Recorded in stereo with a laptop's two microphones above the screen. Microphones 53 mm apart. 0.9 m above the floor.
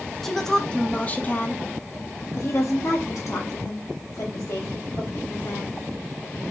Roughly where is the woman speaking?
Centre.